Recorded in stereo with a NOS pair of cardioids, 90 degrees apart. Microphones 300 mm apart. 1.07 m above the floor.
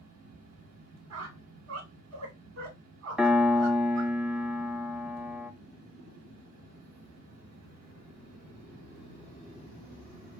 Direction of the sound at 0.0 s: 65° right.